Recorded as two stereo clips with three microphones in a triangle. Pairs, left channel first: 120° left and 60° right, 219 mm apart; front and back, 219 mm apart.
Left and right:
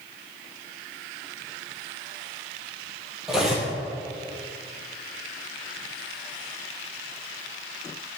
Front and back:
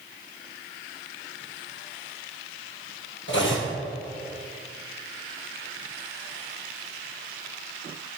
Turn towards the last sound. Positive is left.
turn(degrees=30)